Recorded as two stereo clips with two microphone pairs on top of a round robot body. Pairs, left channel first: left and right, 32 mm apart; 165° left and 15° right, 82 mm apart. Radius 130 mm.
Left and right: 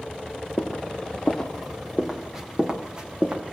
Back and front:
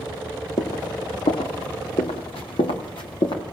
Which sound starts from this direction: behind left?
Footsteps, at 0.6 s.